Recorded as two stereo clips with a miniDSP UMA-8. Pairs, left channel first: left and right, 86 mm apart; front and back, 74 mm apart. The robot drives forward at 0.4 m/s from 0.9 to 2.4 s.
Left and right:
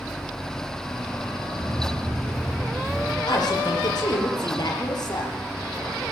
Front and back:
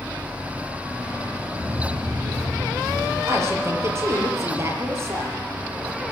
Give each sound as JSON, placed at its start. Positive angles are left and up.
{"t": 1.6, "sound": "footsteps", "azimuth_deg": -135, "distance_m": 8.5}
{"t": 3.3, "sound": "a woman speaking", "azimuth_deg": 130, "distance_m": 5.5}